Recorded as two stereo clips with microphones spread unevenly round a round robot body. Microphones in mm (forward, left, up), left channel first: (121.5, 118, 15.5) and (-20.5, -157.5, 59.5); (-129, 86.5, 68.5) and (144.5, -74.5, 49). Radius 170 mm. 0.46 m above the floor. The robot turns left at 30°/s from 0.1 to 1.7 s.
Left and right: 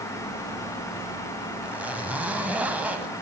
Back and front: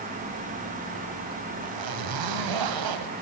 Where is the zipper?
30° right, 2.0 m.